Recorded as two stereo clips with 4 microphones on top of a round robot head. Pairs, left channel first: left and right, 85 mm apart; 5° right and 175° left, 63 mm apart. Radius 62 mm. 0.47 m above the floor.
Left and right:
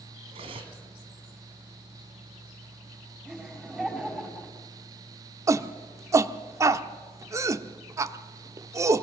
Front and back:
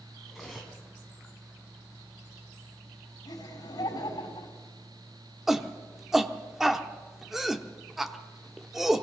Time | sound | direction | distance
0.3 | cutlery clinking | 100° right | 2.5 m
3.2 | laughter | 10° right | 4.5 m
5.5 | a shout | 105° right | 1.0 m